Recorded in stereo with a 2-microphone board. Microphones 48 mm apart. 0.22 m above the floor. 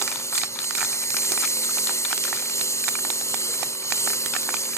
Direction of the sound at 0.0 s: 85° left.